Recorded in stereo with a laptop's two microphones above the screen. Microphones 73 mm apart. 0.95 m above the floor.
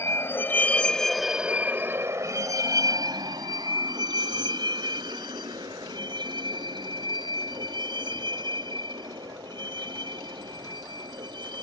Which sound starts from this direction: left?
A vehicle, at 0.0 s.